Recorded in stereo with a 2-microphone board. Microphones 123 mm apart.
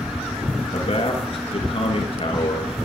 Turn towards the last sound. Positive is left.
turn(degrees=55)  # may be behind; listen again after turning